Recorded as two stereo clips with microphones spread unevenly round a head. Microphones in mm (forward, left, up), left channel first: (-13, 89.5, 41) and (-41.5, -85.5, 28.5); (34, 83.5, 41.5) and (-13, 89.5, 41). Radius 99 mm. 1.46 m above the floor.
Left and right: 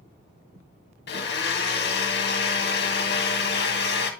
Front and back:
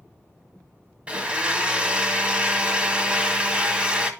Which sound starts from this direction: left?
A blender, at 1.1 s.